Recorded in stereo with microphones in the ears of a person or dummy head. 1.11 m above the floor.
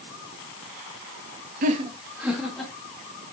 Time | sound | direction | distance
1.6 | laughter | 45° right (ahead or behind) | 0.9 m